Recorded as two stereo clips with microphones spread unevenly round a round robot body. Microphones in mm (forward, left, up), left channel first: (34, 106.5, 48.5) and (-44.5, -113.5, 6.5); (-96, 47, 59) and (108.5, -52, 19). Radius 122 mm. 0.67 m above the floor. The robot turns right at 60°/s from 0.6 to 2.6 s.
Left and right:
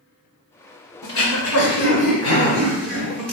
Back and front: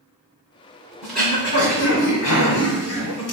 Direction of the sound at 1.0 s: 60° left.